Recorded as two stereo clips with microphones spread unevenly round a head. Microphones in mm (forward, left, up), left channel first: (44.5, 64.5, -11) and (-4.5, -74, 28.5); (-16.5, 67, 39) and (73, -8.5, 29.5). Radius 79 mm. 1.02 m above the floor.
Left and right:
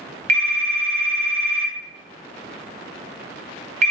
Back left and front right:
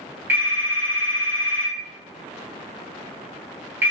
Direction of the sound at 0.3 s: 120° right.